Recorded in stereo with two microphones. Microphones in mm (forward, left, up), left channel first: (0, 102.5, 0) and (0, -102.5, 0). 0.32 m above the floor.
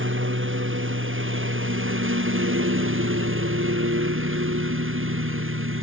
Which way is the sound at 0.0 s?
75° right (ahead or behind).